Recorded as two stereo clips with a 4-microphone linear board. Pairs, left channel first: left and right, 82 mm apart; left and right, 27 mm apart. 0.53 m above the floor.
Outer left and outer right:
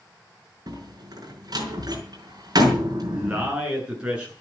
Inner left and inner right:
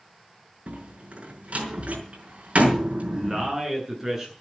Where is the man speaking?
15° right (ahead or behind), 9 m.